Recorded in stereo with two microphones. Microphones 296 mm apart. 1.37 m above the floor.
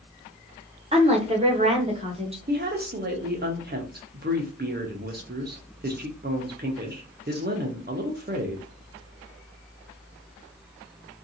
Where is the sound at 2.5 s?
35° right (ahead or behind), 0.6 m.